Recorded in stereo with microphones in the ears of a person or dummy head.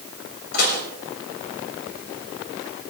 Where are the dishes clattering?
65° left (ahead or behind), 8 m.